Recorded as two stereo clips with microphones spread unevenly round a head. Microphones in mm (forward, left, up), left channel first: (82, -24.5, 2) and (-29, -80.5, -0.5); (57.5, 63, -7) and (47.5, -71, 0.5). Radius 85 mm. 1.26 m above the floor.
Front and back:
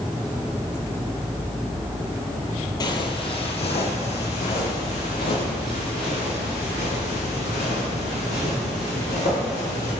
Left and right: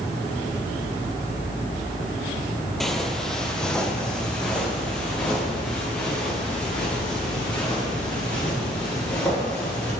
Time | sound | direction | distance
2.8 | footsteps | 5° right | 1.6 m